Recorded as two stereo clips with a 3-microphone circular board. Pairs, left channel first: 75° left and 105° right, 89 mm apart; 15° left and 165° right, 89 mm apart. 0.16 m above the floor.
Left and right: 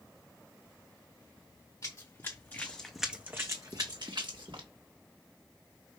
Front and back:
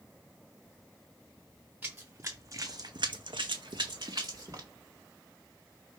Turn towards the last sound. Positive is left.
turn(degrees=-120)